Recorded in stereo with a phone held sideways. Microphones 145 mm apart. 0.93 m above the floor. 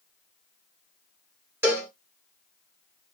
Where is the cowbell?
15° right (ahead or behind), 0.7 m.